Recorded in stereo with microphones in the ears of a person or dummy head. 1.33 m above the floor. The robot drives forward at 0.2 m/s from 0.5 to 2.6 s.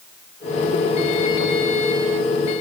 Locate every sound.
Only background noise.